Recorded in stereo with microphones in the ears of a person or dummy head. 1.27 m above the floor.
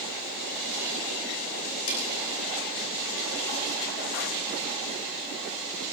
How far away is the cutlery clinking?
About 9 m.